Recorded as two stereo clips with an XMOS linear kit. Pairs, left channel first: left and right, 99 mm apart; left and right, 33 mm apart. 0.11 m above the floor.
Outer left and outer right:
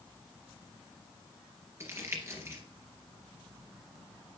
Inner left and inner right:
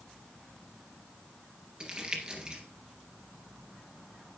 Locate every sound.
1.8 s crumpling: 30° right (ahead or behind), 2 m